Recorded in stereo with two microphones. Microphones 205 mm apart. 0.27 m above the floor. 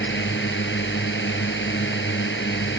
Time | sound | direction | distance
0.0 | a drone | 65° left (ahead or behind) | ?